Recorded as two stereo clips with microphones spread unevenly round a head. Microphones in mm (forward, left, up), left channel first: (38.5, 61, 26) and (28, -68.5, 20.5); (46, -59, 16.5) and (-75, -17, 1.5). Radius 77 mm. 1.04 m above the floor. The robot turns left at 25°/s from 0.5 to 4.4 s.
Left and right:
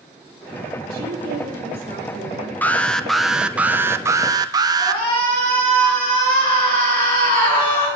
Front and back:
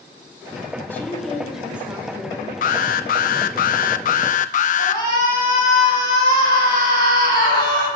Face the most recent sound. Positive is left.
turn(degrees=135)